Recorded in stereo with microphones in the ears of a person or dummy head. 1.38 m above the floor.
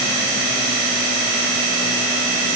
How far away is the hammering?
I don't hear hammering.